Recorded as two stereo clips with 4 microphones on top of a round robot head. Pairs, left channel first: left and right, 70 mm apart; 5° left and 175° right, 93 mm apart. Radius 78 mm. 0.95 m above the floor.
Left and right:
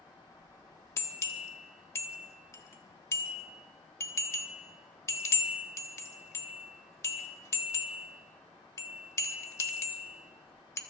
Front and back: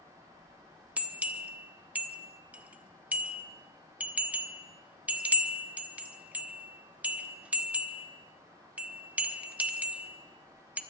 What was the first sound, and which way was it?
A bell, 115° left.